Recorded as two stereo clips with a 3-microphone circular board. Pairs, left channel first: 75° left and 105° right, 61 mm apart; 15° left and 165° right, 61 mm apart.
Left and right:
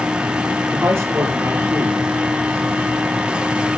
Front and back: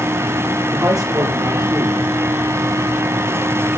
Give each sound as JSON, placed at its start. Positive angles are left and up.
{"t": 0.7, "sound": "a man speaking", "azimuth_deg": -155, "distance_m": 9.5}